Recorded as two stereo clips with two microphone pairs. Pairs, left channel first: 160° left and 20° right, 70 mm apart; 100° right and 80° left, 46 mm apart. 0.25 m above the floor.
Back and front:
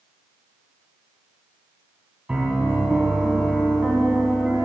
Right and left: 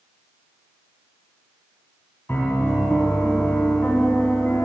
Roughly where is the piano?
Right.